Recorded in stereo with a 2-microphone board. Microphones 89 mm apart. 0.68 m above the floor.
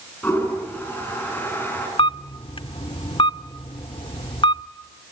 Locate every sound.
0.2 s a toilet flushing: 20° left (ahead or behind), 8 m
2.0 s a camera shutter: 85° left, 0.7 m